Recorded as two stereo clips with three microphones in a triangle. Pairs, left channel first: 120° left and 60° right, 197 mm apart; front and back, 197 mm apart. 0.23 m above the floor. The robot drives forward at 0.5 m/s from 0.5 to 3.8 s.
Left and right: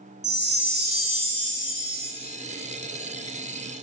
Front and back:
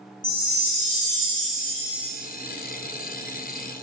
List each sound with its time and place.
0.2 s a chime: 45° right, 0.9 m; by 2.1 s 120° right, 0.7 m